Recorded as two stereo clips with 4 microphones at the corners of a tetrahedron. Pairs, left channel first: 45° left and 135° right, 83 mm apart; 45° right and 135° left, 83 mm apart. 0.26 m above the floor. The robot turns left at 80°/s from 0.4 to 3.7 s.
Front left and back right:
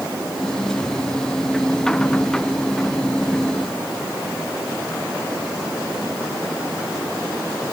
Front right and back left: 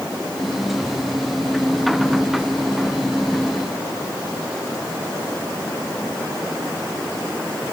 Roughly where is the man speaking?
No man speaking in this recording.